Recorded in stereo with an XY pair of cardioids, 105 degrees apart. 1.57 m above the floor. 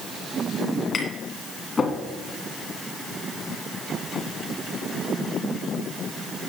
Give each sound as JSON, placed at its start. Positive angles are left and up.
{"t": 0.9, "sound": "tapping", "azimuth_deg": 35, "distance_m": 2.0}